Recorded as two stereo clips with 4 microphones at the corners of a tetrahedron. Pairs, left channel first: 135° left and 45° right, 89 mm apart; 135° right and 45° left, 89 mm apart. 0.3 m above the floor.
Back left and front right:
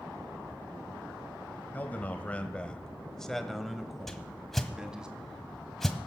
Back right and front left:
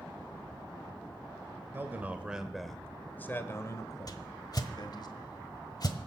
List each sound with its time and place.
1.7 s a man speaking: 85° left, 1.2 m; by 5.1 s 125° right, 1.8 m
4.1 s a whoosh: 140° right, 1.3 m